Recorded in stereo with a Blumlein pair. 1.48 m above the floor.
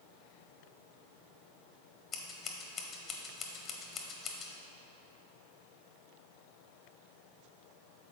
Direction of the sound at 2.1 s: 30° left.